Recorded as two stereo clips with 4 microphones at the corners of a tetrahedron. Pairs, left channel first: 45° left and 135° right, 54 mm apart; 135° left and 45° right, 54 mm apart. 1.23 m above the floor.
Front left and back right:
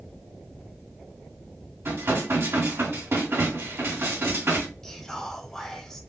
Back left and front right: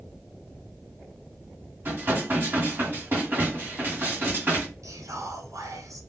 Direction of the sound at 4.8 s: 35° right.